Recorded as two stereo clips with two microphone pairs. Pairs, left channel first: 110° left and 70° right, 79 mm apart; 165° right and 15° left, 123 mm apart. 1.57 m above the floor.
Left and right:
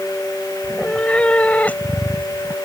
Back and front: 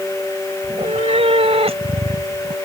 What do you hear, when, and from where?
0.6 s a cat meowing: 35° left; by 2.6 s 45° left